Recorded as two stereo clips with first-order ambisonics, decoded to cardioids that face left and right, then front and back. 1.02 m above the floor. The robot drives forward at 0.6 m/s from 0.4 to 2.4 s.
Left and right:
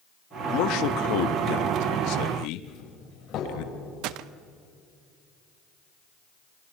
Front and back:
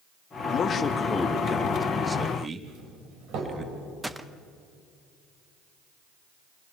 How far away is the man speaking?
About 1.5 m.